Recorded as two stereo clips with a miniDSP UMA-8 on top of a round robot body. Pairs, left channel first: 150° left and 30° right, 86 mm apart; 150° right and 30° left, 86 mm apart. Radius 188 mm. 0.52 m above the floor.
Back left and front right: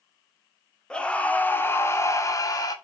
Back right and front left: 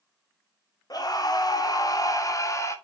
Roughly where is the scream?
Behind right.